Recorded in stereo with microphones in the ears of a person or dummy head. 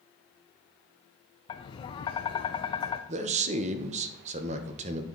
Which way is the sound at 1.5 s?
25° left (ahead or behind).